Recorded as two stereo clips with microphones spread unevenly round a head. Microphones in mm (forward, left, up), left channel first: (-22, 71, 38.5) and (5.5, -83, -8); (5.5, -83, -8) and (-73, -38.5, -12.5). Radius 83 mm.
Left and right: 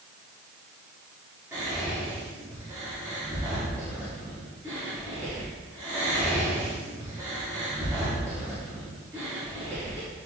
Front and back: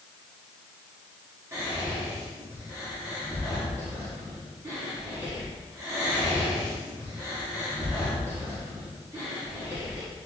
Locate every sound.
1.5 s whispering: 150° right, 1.7 m